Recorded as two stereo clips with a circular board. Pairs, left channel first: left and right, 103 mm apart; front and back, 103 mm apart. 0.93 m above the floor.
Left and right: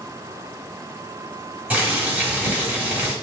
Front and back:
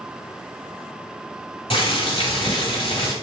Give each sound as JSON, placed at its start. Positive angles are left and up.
{"t": 1.7, "sound": "boiling", "azimuth_deg": -15, "distance_m": 1.3}